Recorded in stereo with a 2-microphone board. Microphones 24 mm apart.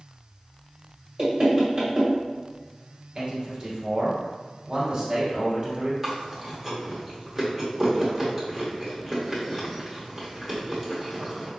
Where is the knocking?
25° right (ahead or behind), 1.4 m.